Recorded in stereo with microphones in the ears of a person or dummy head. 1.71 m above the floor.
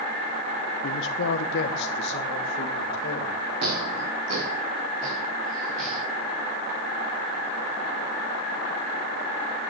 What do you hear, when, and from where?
0.8 s a man speaking: 60° left (ahead or behind), 0.9 m
3.6 s footsteps: 60° right (ahead or behind), 5 m; by 6.0 s 65° right (ahead or behind), 6.5 m